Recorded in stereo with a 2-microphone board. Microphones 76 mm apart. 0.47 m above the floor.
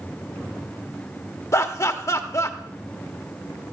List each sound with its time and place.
1.5 s laughter: 40° left (ahead or behind), 1.0 m